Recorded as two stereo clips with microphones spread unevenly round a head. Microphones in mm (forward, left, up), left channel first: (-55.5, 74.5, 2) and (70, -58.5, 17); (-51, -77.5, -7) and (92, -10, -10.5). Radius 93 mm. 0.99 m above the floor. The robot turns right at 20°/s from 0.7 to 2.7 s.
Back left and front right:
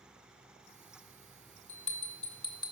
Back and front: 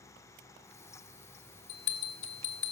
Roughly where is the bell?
Behind.